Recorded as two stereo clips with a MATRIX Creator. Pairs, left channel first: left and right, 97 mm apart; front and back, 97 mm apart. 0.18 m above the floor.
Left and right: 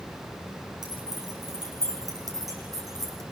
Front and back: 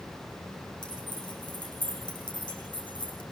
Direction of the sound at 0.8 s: 40° right.